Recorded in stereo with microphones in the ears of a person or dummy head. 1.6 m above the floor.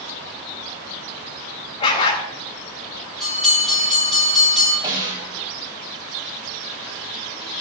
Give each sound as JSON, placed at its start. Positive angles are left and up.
{"t": 1.8, "sound": "a dog barking", "side_deg": 35, "distance_m": 3.5}
{"t": 3.2, "sound": "a bell", "side_deg": 0, "distance_m": 9.0}
{"t": 4.8, "sound": "a snare drum", "side_deg": -25, "distance_m": 4.5}